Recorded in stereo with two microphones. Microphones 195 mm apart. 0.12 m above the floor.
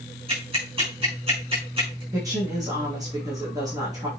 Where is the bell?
No bell in this recording.